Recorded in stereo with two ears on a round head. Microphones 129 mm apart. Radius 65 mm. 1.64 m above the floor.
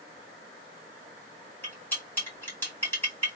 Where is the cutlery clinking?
15° left (ahead or behind), 2.5 m.